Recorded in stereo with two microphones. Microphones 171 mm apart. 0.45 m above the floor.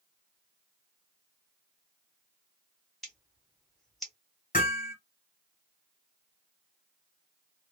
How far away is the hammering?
About 1.4 m.